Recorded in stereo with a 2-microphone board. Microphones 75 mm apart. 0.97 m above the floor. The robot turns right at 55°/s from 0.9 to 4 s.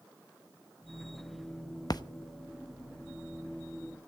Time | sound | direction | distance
1.9 | a splash | 55° left (ahead or behind) | 0.8 m